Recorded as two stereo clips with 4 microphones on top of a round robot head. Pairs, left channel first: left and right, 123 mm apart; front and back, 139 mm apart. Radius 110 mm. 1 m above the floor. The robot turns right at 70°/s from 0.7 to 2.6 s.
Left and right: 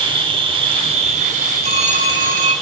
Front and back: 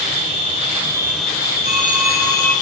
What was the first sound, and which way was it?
An insect, 125° right.